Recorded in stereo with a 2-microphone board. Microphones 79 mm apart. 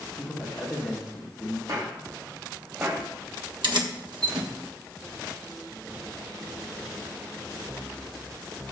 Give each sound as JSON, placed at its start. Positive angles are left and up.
{"t": 0.1, "sound": "a man speaking", "side_deg": -10, "distance_m": 4.0}
{"t": 1.7, "sound": "footsteps", "side_deg": -55, "distance_m": 3.5}
{"t": 3.6, "sound": "keys jangling", "side_deg": -75, "distance_m": 1.3}